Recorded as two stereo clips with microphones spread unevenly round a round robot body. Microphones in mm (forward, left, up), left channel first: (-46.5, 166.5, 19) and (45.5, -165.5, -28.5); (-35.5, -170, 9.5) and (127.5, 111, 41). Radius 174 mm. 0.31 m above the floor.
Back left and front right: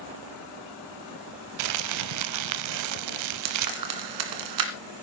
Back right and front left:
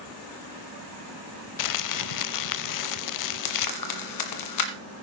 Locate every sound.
1.6 s crumpling: 105° right, 0.6 m
3.5 s frying: 105° right, 2.0 m